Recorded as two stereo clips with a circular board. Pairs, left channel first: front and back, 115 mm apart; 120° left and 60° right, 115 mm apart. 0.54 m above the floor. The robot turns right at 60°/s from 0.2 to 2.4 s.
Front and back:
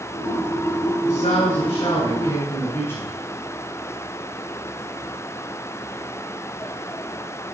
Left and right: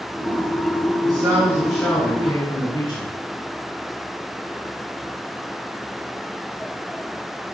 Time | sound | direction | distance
1.0 | a man speaking | 10° right | 7.5 m